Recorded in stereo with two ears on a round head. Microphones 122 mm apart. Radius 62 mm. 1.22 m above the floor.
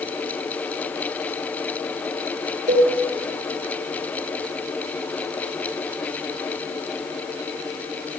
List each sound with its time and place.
2.7 s a cowbell: 60° right (ahead or behind), 1.9 m